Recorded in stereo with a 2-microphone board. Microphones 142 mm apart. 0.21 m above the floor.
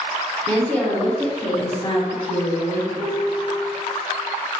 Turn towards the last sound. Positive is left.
turn(degrees=-10)  # may be behind; listen again after turning